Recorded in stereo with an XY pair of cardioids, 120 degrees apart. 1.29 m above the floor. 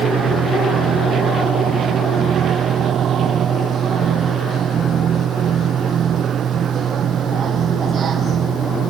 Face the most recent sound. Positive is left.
turn(degrees=-45)